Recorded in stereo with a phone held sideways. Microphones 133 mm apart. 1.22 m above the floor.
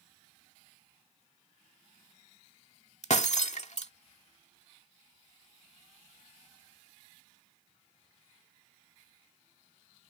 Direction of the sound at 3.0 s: 60° left (ahead or behind).